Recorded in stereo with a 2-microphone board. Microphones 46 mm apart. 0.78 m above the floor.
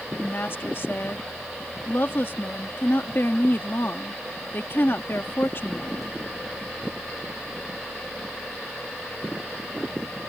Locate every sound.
0.2 s a woman speaking: 55° left (ahead or behind)